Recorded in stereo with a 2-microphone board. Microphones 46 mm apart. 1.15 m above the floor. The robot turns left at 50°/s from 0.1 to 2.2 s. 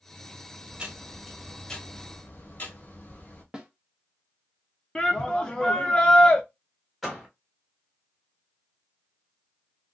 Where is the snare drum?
20° right (ahead or behind), 0.8 m.